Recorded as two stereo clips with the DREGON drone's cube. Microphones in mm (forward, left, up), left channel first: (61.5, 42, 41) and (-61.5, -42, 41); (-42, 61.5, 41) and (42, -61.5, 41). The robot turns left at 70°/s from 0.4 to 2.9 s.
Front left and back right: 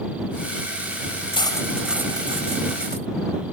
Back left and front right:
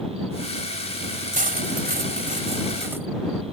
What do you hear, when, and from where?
1.3 s cutlery clinking: 20° right; by 3.1 s 130° right